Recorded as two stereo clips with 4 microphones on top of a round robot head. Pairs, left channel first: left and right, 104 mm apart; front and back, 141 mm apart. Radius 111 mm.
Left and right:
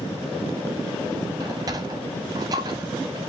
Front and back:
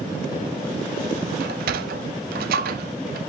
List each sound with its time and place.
1.4 s a sliding door: 155° right, 0.6 m